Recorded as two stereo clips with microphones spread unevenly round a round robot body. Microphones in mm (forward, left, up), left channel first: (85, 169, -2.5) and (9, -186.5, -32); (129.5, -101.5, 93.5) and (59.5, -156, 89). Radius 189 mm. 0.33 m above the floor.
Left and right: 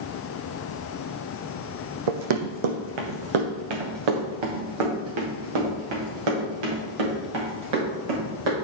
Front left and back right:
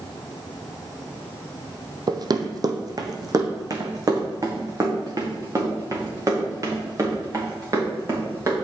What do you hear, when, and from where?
2.1 s running footsteps: 100° right, 1.0 m; by 8.5 s 90° right, 5 m